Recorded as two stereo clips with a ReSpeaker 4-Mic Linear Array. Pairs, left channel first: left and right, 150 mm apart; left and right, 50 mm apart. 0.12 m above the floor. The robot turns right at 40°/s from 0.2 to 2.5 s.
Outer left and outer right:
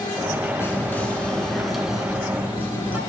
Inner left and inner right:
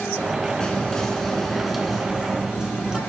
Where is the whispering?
15° left (ahead or behind), 1.1 m; by 3.0 s 10° right (ahead or behind), 1.1 m.